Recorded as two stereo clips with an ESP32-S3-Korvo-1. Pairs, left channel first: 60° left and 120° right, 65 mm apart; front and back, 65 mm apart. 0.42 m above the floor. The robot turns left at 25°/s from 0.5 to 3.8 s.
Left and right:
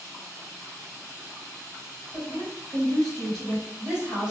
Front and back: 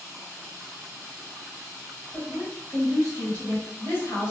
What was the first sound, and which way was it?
A woman speaking, 5° right.